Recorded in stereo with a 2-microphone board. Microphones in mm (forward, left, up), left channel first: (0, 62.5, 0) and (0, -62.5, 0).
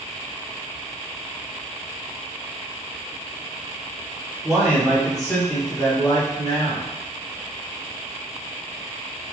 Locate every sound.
4.4 s a man speaking: 20° right (ahead or behind), 1.3 m; by 6.9 s 35° left (ahead or behind), 1.8 m